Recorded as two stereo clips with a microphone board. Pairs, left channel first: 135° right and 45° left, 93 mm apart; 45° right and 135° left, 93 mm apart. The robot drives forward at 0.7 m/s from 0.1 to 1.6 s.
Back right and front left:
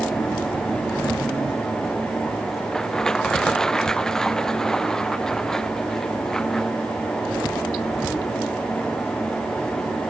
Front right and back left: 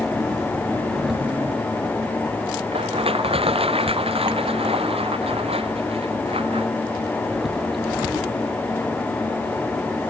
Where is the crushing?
140° left.